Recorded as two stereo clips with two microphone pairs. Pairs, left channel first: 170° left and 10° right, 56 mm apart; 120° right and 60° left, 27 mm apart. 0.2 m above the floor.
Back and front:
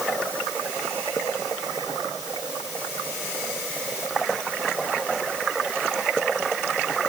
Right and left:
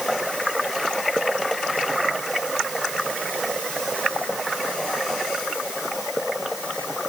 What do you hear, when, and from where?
Only background noise.